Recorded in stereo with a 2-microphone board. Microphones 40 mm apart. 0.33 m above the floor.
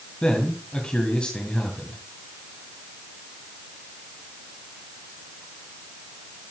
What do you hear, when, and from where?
0.2 s a man speaking: 25° left (ahead or behind), 2.5 m